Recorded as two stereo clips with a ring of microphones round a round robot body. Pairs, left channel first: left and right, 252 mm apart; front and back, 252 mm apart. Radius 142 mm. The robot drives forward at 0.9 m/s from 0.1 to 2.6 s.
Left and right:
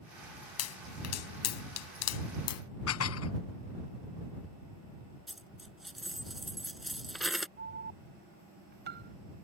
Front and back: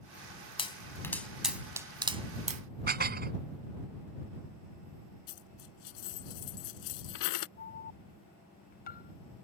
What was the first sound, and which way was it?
A pop, 70° left.